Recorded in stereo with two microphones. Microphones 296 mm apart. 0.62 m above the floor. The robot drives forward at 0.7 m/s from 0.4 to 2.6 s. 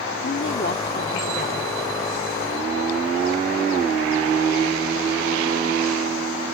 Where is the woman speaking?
40° left (ahead or behind); by 1.8 s 25° left (ahead or behind).